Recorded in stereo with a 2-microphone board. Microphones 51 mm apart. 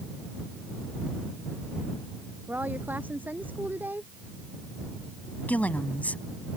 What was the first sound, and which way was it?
A woman speaking, 40° right (ahead or behind).